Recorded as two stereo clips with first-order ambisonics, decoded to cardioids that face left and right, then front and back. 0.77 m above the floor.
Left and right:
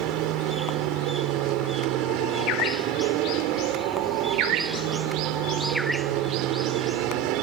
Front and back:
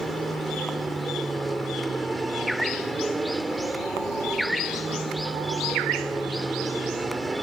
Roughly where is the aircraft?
Right.